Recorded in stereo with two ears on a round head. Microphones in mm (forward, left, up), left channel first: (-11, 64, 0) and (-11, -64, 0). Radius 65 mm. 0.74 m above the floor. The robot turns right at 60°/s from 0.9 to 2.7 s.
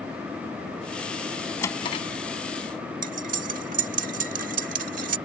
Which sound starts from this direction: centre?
A drawer, at 1.6 s.